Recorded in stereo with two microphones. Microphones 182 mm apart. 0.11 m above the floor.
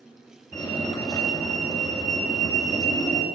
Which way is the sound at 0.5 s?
20° left (ahead or behind).